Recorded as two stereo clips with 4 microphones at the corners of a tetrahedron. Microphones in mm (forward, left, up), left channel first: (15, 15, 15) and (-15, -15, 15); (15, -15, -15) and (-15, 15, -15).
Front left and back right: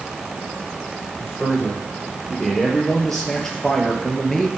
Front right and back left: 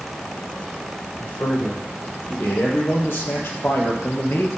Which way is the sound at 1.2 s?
35° right.